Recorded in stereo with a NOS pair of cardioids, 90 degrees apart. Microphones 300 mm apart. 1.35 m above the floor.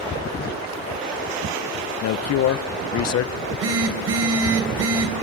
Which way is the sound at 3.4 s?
60° right.